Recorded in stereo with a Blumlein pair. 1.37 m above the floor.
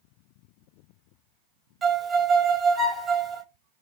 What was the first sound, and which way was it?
A violin, 15° right.